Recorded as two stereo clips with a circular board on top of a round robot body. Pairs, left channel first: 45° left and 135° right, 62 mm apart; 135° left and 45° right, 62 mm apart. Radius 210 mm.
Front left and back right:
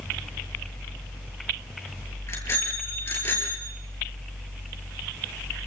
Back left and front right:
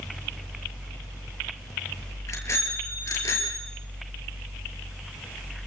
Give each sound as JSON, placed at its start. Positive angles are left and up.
{"t": 2.3, "sound": "a bicycle bell", "azimuth_deg": 90, "distance_m": 8.0}